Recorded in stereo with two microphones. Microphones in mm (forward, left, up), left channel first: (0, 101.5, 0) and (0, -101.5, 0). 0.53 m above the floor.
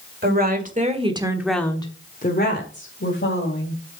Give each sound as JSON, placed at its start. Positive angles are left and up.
{"t": 0.2, "sound": "a woman speaking", "side_deg": -50, "distance_m": 2.0}